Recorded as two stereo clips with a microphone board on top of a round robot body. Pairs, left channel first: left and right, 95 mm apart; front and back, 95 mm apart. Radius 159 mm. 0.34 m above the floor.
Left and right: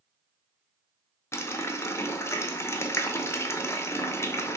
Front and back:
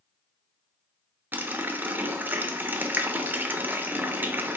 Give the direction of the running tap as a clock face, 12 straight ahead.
8 o'clock.